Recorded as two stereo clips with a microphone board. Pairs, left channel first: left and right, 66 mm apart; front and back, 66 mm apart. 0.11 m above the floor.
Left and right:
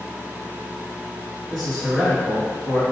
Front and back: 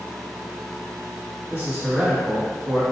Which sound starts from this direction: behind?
A man speaking, at 1.5 s.